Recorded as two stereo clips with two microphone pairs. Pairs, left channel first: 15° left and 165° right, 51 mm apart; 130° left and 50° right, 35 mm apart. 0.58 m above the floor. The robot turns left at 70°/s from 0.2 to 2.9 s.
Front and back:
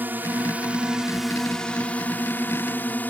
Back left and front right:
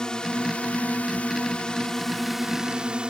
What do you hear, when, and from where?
0.0 s a drone: 175° right; by 3.1 s 5° right